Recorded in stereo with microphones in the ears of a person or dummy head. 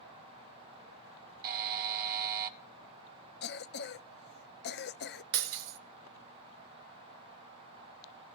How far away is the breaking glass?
About 1.7 m.